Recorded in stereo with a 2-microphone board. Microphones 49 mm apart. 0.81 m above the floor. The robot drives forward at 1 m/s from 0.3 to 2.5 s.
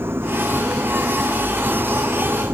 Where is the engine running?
55° right (ahead or behind); by 2.6 s 50° right (ahead or behind).